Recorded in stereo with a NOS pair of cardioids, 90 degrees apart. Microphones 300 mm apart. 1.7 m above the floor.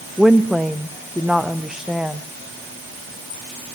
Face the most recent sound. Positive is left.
turn(degrees=0)